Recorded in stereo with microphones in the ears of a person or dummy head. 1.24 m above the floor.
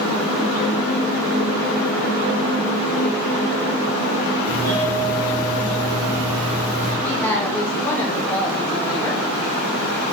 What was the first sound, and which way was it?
A doorbell, 15° left (ahead or behind).